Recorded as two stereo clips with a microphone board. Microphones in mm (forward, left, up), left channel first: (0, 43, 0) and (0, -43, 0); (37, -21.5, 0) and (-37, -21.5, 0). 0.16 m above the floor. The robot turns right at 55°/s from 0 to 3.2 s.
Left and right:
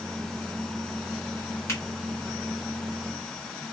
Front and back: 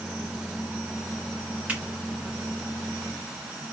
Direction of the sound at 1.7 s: 115° left.